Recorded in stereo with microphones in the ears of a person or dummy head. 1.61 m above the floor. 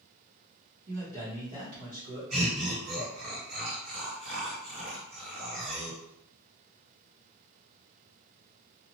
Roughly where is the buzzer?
No buzzer in this recording.